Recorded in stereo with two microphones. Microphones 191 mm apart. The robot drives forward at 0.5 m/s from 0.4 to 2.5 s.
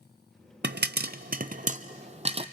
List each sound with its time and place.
0.6 s a pop: 65° right (ahead or behind), 0.7 m; by 2.4 s 30° right (ahead or behind), 1.2 m